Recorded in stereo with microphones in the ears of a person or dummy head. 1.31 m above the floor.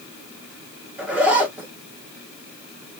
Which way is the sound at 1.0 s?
10° right (ahead or behind).